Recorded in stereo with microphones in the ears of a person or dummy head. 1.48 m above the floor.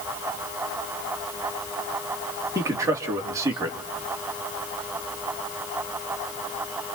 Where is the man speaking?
15° right (ahead or behind), 2.5 m.